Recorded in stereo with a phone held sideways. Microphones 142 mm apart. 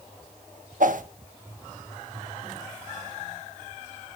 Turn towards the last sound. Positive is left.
turn(degrees=-65)  # may be behind; listen again after turning